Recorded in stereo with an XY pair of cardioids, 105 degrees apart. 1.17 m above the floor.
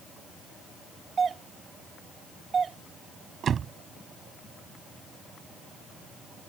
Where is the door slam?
50° right.